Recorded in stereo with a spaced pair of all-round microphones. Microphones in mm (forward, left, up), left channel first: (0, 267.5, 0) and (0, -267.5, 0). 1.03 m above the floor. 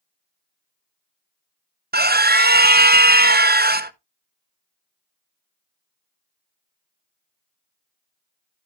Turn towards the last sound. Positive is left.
turn(degrees=-20)  # may be behind; listen again after turning